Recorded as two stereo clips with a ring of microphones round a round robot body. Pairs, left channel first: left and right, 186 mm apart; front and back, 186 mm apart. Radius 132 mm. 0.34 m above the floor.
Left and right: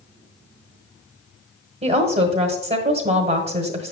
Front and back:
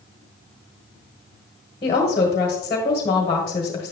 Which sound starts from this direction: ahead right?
A woman speaking, at 1.8 s.